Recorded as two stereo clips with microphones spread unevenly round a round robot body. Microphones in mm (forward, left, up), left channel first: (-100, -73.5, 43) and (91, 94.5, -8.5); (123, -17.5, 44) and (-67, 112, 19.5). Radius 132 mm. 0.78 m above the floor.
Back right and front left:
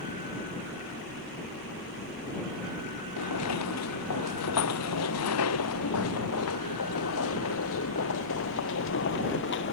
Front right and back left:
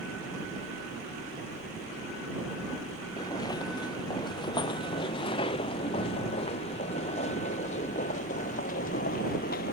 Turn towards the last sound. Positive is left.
turn(degrees=-90)